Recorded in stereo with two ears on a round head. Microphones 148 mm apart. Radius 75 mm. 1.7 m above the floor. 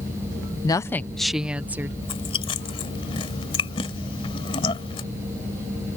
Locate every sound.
0.6 s a woman speaking: 25° left (ahead or behind); by 1.9 s 10° right (ahead or behind)
2.0 s chewing: 35° left (ahead or behind)